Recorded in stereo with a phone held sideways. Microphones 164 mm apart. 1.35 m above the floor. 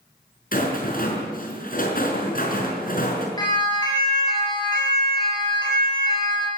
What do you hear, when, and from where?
0.5 s a rattle: 60° left (ahead or behind), 5.5 m
3.4 s a siren: 25° left (ahead or behind), 8 m